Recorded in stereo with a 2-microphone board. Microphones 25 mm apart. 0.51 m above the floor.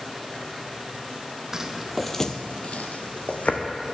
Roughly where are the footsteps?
Right.